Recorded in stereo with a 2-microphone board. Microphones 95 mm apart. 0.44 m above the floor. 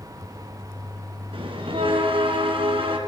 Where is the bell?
75° right (ahead or behind), 3.5 m.